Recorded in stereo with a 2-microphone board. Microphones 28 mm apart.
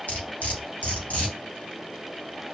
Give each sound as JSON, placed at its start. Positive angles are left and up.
{"t": 0.1, "sound": "cutlery clinking", "side_deg": 60, "distance_m": 1.4}